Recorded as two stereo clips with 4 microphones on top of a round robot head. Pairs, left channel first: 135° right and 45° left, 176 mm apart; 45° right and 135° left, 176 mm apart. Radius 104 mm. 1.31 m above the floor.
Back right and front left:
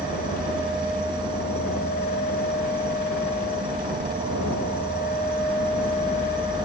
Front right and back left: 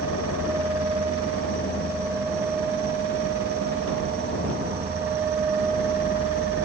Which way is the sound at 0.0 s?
110° left.